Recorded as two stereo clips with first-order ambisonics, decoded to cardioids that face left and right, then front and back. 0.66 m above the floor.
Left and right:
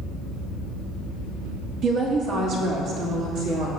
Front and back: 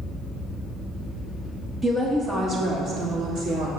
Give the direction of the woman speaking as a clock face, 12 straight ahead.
4 o'clock.